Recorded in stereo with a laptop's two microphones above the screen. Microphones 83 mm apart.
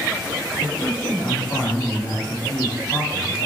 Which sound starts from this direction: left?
A man speaking, at 0.5 s.